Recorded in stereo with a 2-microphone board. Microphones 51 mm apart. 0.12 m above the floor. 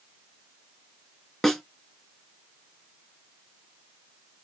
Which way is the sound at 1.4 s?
5° left (ahead or behind).